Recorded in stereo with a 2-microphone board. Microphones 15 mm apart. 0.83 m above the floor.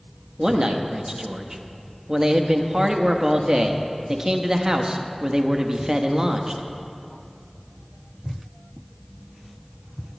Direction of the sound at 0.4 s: 35° right (ahead or behind).